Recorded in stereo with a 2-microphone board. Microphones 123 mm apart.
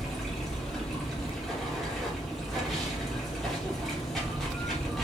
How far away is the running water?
About 0.9 m.